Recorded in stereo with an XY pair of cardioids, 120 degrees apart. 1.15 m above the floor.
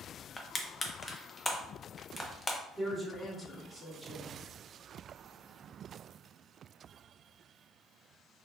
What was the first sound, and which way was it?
Crushing, 15° left.